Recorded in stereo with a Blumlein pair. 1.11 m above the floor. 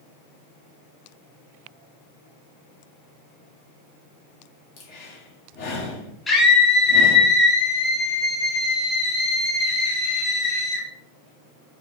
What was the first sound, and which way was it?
Breathing, 45° left.